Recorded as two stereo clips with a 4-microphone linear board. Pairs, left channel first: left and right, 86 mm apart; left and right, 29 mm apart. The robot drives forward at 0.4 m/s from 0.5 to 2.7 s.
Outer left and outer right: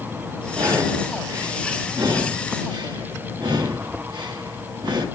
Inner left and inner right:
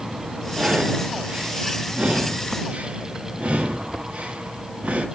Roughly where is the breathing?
Right.